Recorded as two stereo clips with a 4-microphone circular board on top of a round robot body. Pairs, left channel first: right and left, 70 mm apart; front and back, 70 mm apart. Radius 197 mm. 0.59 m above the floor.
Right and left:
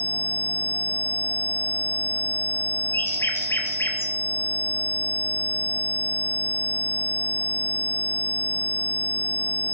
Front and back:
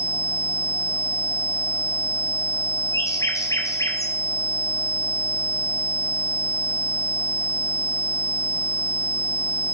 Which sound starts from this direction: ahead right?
A bird, at 2.9 s.